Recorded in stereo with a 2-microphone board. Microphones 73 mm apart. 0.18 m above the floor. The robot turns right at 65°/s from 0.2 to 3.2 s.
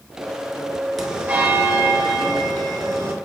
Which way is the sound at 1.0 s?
Straight behind.